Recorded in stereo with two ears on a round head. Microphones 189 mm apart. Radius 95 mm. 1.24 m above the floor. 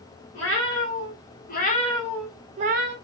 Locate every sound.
0.3 s a cat meowing: 60° left (ahead or behind), 1.7 m; by 3.0 s 50° right (ahead or behind), 0.7 m